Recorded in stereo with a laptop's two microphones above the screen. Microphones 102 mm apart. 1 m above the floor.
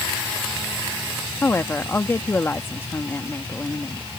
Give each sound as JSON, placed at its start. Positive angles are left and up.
{"t": 1.4, "sound": "a woman speaking", "side_deg": 25}